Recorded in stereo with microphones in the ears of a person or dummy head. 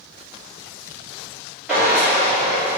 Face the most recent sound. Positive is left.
turn(degrees=-10)  # may be behind; listen again after turning